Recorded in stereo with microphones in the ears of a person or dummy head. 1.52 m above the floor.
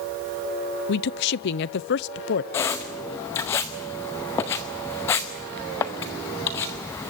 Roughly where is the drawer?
No drawer in this recording.